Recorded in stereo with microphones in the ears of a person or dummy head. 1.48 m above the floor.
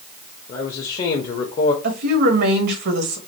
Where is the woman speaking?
55° right (ahead or behind), 1.3 m.